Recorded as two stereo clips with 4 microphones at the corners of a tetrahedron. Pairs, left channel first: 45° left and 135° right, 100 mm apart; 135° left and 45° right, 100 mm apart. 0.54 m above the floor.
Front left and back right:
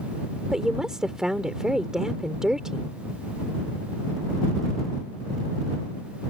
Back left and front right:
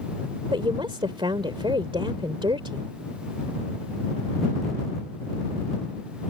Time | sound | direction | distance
0.5 | a woman speaking | 50° right | ?